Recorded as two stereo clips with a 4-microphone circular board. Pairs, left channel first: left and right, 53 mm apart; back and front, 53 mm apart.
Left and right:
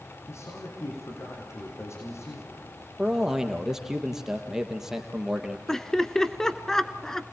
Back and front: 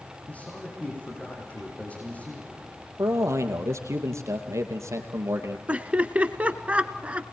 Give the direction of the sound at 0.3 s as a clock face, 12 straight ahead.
8 o'clock.